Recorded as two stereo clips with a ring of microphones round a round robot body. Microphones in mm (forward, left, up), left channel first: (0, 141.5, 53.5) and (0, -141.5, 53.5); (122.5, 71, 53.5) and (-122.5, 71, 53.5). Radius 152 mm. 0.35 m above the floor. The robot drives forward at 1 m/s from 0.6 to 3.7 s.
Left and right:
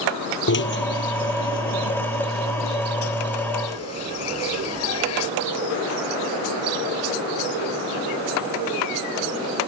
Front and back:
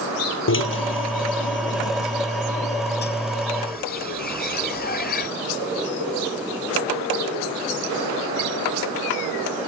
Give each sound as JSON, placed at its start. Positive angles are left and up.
{"t": 0.5, "sound": "a drill", "azimuth_deg": 40}